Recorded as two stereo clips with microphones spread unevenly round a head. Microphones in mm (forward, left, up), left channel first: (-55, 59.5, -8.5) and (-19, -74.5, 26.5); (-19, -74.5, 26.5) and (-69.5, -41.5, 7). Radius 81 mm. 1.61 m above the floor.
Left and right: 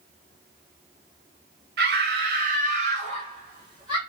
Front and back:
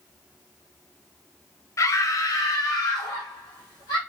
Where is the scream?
65° right, 0.8 m; by 4.0 s 10° right, 1.5 m.